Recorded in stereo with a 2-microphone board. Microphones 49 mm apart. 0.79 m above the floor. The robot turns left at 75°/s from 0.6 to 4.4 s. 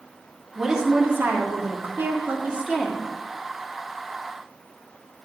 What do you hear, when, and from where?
0.6 s a woman speaking: 10° right, 1.9 m; by 3.1 s 165° left, 1.9 m